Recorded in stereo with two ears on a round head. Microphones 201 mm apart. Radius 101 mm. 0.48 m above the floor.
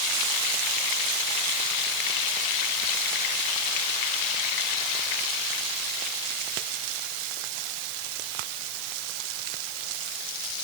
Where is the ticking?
No ticking in this recording.